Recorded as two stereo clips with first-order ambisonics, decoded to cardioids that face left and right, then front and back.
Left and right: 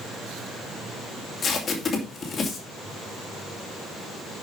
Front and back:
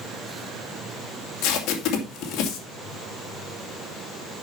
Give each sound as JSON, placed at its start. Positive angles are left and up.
{"t": 1.4, "sound": "tape being pulled", "azimuth_deg": 25, "distance_m": 2.5}